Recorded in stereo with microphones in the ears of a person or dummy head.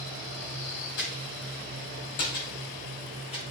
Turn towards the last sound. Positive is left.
turn(degrees=25)  # may be behind; listen again after turning